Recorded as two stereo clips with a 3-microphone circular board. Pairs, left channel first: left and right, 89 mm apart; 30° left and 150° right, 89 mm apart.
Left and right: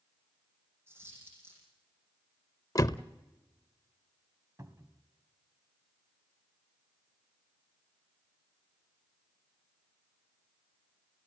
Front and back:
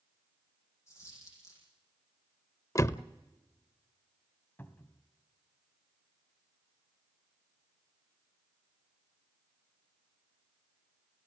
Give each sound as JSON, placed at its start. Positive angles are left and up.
{"t": 0.9, "sound": "a dropped coin", "azimuth_deg": -25, "distance_m": 9.0}
{"t": 2.8, "sound": "a door slam", "azimuth_deg": 65, "distance_m": 0.6}
{"t": 4.6, "sound": "a cupboard door", "azimuth_deg": -35, "distance_m": 1.5}